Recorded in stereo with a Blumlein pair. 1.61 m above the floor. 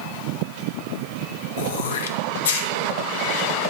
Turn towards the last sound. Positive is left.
turn(degrees=60)